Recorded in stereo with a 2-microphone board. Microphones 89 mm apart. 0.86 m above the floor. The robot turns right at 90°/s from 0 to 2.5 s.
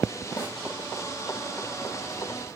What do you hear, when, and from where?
0.4 s a snare drum: 40° left (ahead or behind), 9 m; by 0.6 s 20° left (ahead or behind), 9 m